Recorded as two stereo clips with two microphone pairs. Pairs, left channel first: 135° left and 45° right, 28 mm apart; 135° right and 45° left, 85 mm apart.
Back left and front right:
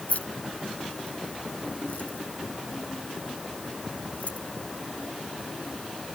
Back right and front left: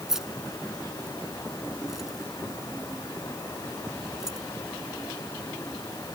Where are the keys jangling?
130° left.